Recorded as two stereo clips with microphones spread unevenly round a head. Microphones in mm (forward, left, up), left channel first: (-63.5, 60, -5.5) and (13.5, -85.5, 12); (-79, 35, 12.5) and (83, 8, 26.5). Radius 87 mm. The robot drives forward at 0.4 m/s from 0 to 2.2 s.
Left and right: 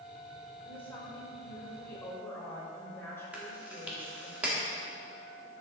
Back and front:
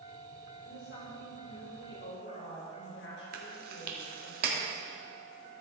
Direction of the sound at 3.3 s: 20° left.